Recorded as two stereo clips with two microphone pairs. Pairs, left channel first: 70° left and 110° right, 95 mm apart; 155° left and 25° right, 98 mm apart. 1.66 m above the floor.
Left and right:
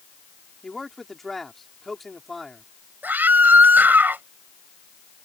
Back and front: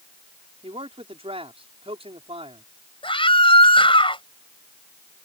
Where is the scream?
Straight behind.